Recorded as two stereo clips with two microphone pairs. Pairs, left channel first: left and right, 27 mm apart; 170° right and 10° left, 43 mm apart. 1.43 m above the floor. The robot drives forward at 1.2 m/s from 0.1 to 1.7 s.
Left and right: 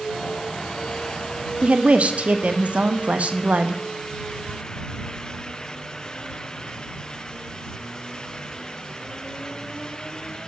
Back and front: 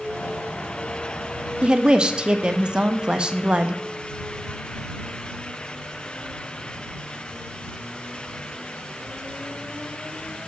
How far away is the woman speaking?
About 0.6 m.